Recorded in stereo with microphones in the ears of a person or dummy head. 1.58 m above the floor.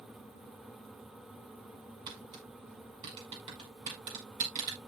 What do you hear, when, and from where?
2.1 s tapping: 30° right (ahead or behind), 5.5 m